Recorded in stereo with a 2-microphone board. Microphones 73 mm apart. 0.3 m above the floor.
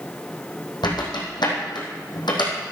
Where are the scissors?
I don't hear scissors.